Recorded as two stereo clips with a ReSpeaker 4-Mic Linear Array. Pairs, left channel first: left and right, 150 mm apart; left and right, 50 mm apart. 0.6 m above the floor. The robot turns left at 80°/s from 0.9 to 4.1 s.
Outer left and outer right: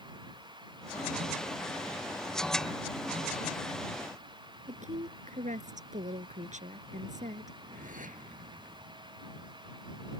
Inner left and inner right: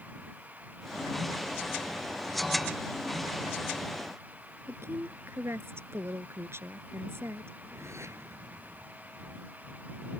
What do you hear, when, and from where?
4.7 s a woman speaking: 55° right (ahead or behind)
7.5 s a whoosh: 60° right (ahead or behind)